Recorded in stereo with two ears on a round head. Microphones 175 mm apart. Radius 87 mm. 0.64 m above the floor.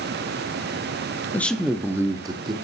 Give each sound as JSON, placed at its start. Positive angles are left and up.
{"t": 1.3, "sound": "a man speaking", "side_deg": 10, "distance_m": 0.5}